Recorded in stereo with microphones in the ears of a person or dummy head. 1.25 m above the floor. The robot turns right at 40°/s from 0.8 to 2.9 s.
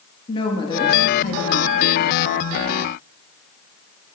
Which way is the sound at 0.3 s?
20° left.